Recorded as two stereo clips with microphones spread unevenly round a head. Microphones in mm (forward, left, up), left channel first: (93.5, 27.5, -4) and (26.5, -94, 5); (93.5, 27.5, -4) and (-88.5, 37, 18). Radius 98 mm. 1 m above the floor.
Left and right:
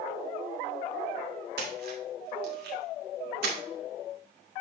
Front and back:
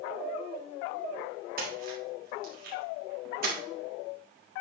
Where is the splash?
135° right, 1.6 m.